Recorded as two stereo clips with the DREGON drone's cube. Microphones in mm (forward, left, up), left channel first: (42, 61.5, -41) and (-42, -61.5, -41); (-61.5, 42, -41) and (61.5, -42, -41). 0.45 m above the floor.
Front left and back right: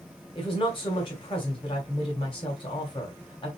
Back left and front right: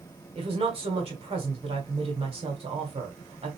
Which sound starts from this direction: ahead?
A woman speaking, at 0.3 s.